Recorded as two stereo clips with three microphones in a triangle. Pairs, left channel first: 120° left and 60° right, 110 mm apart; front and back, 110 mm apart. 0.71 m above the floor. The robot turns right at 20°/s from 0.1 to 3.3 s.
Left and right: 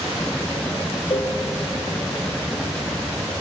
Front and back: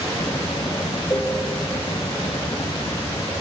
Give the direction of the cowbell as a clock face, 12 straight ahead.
10 o'clock.